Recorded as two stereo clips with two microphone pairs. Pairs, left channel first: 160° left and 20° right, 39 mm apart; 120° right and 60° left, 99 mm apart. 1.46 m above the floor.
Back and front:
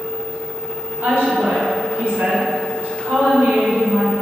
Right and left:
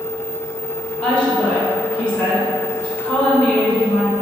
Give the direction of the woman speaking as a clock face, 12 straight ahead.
1 o'clock.